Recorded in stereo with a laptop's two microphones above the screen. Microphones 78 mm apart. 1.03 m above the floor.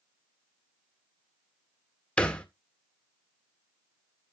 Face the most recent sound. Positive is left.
turn(degrees=15)  # may be behind; listen again after turning